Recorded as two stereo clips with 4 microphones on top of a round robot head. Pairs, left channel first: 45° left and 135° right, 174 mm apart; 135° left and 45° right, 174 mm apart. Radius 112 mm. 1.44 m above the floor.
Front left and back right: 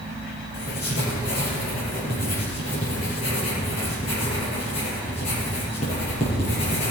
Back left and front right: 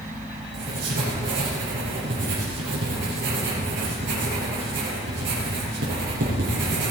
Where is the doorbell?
No doorbell in this recording.